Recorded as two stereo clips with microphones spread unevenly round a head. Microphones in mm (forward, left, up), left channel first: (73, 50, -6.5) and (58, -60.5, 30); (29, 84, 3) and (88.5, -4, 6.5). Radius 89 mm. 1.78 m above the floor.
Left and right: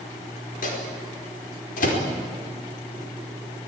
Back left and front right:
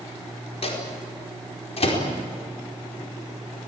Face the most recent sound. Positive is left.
turn(degrees=100)